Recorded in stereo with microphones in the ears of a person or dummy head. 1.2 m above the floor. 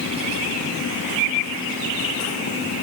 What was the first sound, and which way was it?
Only background noise.